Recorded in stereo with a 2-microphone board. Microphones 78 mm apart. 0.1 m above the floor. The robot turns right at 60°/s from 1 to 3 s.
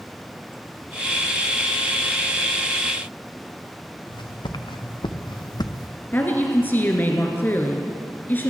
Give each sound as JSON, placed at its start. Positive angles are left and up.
{"t": 4.1, "sound": "footsteps", "side_deg": 85, "distance_m": 1.2}
{"t": 6.1, "sound": "a woman speaking", "side_deg": 25, "distance_m": 1.3}